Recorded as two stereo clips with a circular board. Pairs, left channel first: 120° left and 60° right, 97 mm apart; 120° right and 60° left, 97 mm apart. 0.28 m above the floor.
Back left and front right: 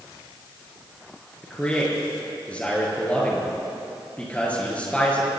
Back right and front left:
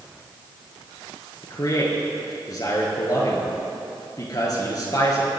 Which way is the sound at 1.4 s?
165° right.